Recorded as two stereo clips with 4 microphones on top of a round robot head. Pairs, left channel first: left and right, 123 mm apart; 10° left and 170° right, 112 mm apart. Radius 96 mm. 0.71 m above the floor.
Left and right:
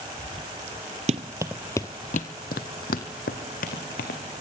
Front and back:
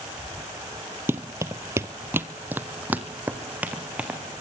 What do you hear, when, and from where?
1.1 s running footsteps: 100° right, 0.9 m; by 4.2 s 110° left, 3 m